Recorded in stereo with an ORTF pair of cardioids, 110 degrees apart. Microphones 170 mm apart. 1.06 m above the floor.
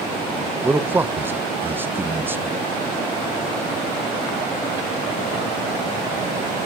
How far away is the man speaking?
About 0.6 m.